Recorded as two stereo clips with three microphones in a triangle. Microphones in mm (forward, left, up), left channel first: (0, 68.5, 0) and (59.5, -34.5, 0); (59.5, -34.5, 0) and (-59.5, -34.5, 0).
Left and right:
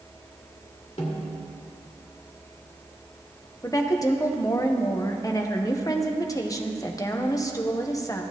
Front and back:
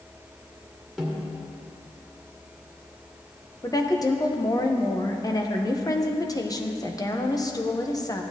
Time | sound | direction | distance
1.0 | a snare drum | 90° left | 2 m
3.6 | a woman speaking | 60° left | 0.9 m